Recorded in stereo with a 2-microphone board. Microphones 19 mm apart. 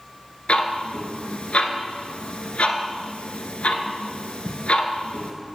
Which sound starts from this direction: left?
Ticking, at 0.5 s.